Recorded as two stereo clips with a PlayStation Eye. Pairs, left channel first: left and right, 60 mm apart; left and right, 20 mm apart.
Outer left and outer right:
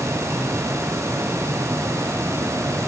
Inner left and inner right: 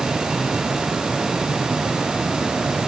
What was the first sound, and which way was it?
Only background noise.